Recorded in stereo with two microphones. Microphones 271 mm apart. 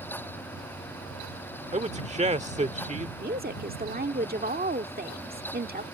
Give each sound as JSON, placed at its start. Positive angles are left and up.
{"t": 1.7, "sound": "a man speaking", "side_deg": -25}
{"t": 3.2, "sound": "a woman speaking", "side_deg": -35}